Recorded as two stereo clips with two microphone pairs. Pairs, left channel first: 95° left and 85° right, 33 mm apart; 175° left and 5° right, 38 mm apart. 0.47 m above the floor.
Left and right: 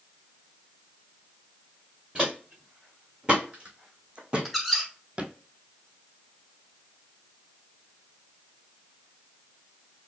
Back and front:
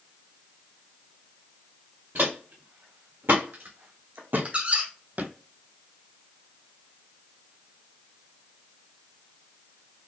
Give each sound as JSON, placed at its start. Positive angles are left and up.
{"t": 2.1, "sound": "footsteps", "azimuth_deg": -25, "distance_m": 2.0}
{"t": 4.5, "sound": "a squeak", "azimuth_deg": -5, "distance_m": 0.9}